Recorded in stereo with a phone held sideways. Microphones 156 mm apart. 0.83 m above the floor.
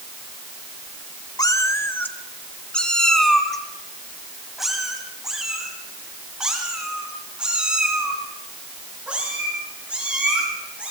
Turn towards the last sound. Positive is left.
turn(degrees=-10)  # may be behind; listen again after turning